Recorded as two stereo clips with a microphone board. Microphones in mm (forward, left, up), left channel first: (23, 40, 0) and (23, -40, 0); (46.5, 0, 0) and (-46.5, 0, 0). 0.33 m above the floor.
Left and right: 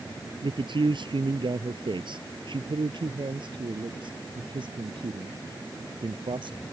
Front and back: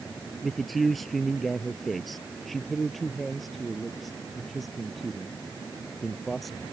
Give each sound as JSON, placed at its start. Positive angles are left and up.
{"t": 0.4, "sound": "a man speaking", "azimuth_deg": -90}